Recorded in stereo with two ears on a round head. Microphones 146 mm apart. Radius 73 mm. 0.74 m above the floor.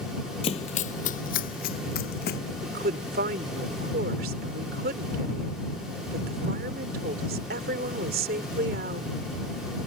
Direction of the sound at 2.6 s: 60° right (ahead or behind).